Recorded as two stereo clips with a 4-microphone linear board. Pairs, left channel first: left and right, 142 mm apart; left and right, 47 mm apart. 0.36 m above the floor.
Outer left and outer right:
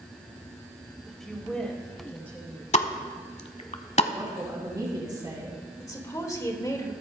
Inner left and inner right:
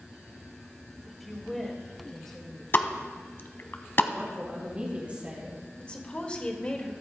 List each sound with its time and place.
1.1 s a woman speaking: centre (ahead or behind), 1.6 m; by 2.6 s 10° left (ahead or behind), 2.5 m
2.7 s a pop: 50° left (ahead or behind), 0.8 m
4.1 s a woman speaking: 25° right (ahead or behind), 2.5 m
5.8 s a woman speaking: 25° left (ahead or behind), 1.5 m